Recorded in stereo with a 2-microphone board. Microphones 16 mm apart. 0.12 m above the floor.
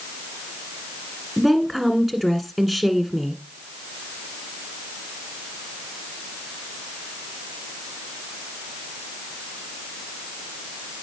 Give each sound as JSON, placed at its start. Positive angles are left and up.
{"t": 1.4, "sound": "a woman speaking", "side_deg": -15, "distance_m": 1.5}